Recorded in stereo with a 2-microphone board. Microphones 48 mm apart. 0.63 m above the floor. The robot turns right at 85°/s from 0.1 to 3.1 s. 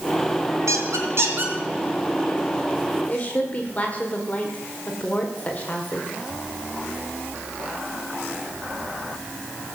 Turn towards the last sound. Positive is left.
turn(degrees=30)  # may be behind; listen again after turning